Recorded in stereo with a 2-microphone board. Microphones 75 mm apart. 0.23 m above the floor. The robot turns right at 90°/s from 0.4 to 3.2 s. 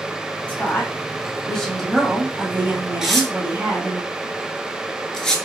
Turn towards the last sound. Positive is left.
turn(degrees=10)  # may be behind; listen again after turning